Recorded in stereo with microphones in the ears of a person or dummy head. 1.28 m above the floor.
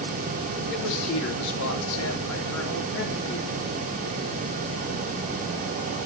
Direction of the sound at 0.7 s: 75° left (ahead or behind).